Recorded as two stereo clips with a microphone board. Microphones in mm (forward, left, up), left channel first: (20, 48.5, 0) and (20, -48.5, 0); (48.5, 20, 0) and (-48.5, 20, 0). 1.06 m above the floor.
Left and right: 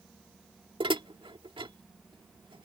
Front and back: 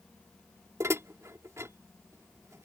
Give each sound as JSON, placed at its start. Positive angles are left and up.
{"t": 0.8, "sound": "dishes clattering", "azimuth_deg": -120}